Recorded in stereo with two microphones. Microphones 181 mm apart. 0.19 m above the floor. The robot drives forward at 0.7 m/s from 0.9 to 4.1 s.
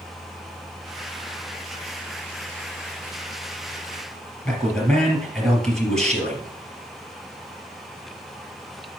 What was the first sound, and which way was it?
A man speaking, 5° left (ahead or behind).